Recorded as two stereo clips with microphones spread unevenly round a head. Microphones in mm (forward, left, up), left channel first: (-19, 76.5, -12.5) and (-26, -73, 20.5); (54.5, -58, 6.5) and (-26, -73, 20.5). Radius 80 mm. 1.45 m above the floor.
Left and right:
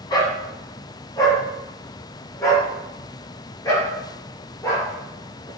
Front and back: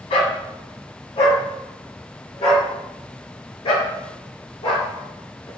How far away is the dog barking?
About 2.5 m.